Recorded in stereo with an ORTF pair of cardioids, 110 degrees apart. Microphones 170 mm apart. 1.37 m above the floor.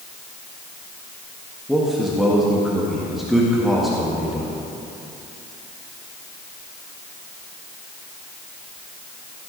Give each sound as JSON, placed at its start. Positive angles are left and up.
{"t": 1.7, "sound": "a man speaking", "azimuth_deg": 0, "distance_m": 1.7}